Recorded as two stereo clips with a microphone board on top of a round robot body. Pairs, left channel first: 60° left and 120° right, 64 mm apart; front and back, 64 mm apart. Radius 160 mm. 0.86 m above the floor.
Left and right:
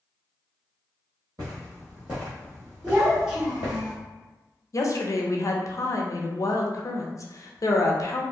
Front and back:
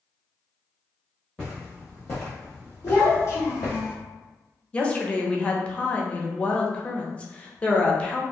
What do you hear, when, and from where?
1.4 s footsteps: 80° right, 1.3 m; by 3.8 s 50° left, 1.3 m
2.8 s a child speaking: 35° right, 1.4 m
4.7 s a woman speaking: 70° left, 0.7 m